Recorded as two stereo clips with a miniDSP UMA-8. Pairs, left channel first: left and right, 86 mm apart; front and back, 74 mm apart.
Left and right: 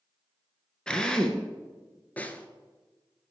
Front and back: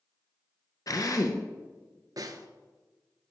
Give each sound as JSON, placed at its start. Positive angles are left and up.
{"t": 0.9, "sound": "a drill", "azimuth_deg": 15, "distance_m": 0.8}
{"t": 2.2, "sound": "a snare drum", "azimuth_deg": 160, "distance_m": 0.6}